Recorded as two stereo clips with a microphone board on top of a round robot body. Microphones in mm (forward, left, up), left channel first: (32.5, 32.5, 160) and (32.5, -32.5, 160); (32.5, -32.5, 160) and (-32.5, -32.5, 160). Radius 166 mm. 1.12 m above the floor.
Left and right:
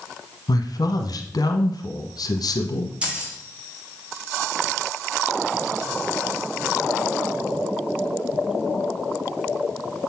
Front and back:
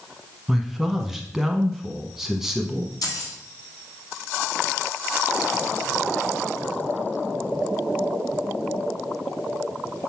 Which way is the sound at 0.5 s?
95° left.